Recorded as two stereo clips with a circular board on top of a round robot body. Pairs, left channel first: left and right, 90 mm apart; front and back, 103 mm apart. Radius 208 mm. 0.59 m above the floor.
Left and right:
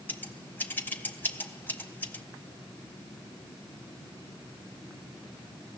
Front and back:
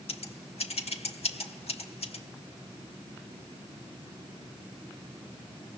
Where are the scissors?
20° left, 2 m.